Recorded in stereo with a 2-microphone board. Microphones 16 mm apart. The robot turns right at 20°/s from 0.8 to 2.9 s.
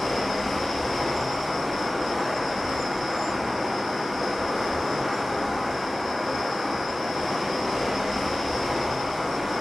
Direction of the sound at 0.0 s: Straight behind.